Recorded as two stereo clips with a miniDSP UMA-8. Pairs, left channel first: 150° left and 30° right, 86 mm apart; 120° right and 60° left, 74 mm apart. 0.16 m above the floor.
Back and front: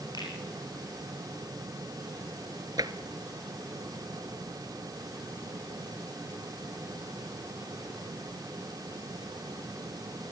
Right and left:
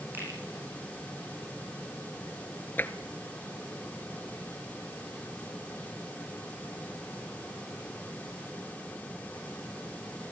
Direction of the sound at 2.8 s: 60° right.